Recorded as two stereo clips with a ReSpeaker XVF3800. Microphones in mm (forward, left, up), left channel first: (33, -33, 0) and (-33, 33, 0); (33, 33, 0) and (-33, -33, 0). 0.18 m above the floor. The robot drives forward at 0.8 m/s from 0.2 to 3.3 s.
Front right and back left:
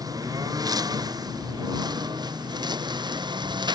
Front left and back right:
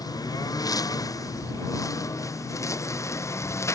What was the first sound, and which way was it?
A lawn mower, 90° left.